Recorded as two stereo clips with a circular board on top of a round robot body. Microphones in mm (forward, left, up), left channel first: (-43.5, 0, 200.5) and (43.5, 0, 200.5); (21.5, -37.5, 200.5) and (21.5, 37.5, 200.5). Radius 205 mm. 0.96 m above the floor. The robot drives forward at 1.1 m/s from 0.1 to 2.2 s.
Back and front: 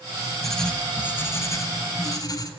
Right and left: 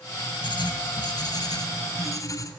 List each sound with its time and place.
0.4 s writing: 95° right, 2 m; by 2.5 s 135° right, 3 m